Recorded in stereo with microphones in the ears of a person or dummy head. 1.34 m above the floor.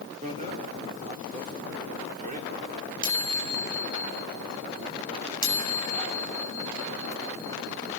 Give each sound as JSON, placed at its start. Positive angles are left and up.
{"t": 0.2, "sound": "a bicycle bell", "side_deg": -40, "distance_m": 2.5}